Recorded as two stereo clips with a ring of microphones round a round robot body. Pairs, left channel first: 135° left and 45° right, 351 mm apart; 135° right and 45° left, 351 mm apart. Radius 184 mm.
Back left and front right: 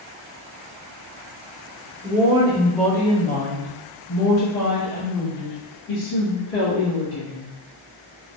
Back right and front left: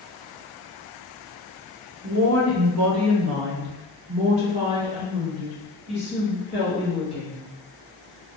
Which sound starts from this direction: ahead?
A woman speaking, at 2.0 s.